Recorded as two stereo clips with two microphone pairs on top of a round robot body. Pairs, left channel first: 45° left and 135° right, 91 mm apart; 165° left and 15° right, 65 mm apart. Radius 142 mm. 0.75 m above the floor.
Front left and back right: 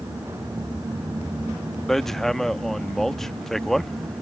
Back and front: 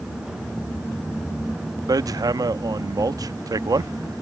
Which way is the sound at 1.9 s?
45° right.